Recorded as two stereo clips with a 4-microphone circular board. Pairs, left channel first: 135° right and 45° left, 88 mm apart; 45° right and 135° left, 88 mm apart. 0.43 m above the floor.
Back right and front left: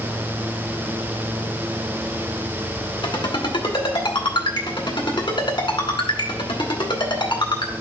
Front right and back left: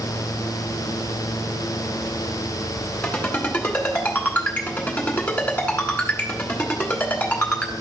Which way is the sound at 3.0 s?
115° right.